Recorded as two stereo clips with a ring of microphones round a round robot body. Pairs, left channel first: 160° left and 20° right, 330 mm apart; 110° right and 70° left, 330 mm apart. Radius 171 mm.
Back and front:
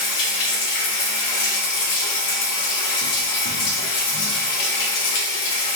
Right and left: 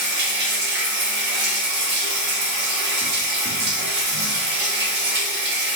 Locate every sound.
0.0 s running water: 125° left, 0.9 m